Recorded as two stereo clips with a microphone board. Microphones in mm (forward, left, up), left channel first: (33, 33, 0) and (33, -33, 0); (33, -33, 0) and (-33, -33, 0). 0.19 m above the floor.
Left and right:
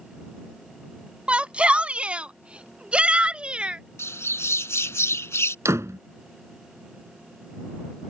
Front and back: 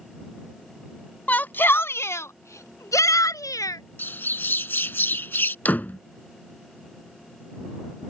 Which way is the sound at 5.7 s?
60° right.